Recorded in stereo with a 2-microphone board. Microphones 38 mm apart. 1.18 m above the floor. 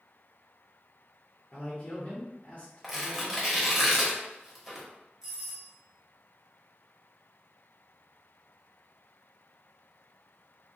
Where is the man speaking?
30° left (ahead or behind), 0.8 m.